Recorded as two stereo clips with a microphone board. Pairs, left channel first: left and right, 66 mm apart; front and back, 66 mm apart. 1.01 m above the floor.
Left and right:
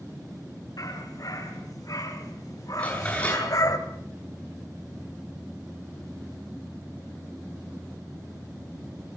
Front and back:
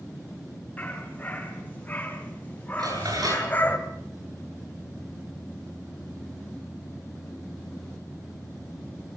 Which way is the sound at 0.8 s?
70° left.